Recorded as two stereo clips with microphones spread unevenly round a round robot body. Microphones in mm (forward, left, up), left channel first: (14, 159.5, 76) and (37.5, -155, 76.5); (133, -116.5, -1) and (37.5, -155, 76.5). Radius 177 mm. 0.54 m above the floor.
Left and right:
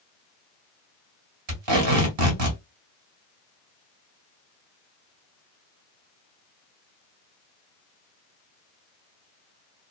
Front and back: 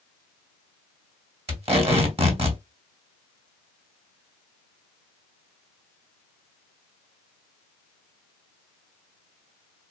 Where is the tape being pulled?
120° right, 1.9 m.